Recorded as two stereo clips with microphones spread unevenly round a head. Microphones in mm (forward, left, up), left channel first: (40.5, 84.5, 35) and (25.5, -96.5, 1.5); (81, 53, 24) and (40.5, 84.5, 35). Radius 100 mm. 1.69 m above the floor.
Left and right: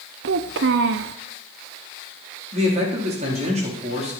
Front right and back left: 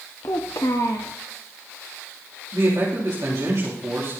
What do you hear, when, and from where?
0.2 s a child speaking: 90° right, 0.6 m
2.5 s a man speaking: 155° right, 3.5 m